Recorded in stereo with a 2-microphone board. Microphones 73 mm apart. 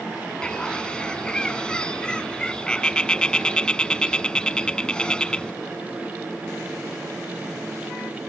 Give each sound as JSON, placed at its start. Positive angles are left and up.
{"t": 0.4, "sound": "a bird", "side_deg": 15}